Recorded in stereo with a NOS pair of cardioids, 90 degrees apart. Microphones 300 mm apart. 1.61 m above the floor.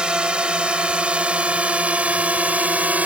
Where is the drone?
5° right.